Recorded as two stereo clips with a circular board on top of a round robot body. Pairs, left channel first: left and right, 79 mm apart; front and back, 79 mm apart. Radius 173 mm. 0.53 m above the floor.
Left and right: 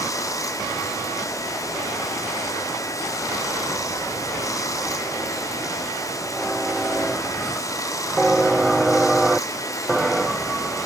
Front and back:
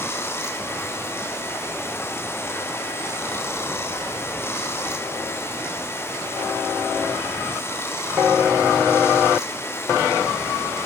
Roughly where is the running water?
Ahead left.